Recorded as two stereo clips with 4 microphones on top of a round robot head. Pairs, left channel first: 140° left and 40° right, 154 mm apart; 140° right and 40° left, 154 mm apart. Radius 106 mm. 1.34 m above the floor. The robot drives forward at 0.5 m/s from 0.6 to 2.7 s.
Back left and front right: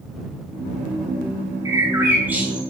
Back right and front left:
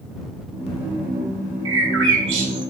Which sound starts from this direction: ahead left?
A bird, at 1.6 s.